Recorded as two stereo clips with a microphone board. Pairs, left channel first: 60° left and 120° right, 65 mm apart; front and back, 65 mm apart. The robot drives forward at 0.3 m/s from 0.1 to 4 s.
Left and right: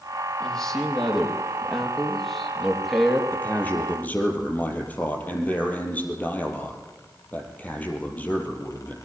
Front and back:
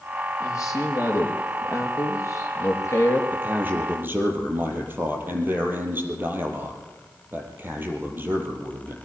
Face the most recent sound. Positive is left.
turn(degrees=125)